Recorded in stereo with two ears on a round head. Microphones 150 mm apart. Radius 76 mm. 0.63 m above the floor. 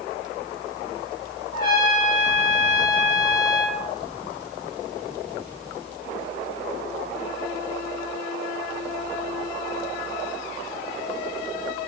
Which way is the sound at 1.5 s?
25° left (ahead or behind).